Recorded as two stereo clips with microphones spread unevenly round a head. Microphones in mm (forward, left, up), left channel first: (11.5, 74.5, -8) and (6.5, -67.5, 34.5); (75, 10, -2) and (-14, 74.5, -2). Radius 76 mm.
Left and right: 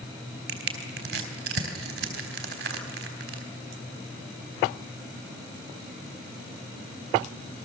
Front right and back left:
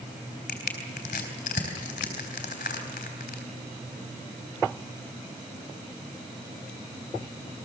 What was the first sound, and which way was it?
Crushing, 70° right.